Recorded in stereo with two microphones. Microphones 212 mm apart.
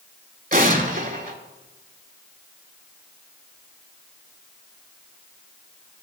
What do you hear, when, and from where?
0.5 s an explosion: 40° right (ahead or behind), 0.8 m